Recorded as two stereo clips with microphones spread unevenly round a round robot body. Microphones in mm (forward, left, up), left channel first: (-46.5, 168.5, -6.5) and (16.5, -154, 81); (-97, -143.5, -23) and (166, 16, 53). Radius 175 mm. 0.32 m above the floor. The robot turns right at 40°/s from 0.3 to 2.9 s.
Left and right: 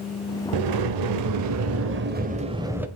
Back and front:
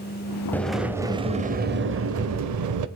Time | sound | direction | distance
0.5 | a sliding door | 75° right | 0.9 m